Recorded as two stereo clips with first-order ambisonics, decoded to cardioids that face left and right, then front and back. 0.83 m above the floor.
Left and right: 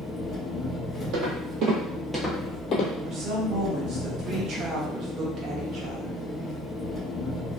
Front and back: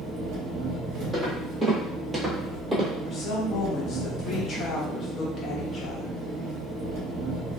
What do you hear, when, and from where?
0.0 s an engine running: 170° left, 0.9 m
1.1 s footsteps: 90° right, 1.3 m; by 2.9 s 110° left, 1.1 m
3.0 s a woman speaking: 50° right, 0.8 m